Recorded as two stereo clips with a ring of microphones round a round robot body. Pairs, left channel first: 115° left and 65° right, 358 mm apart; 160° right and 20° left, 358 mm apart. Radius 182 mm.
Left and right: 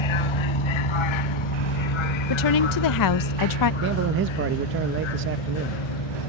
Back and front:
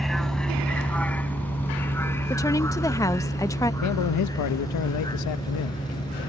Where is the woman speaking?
125° left.